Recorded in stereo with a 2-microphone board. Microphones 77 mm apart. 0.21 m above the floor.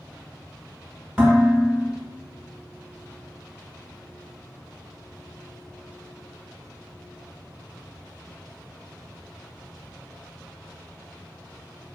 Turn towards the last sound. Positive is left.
turn(degrees=-10)  # may be behind; listen again after turning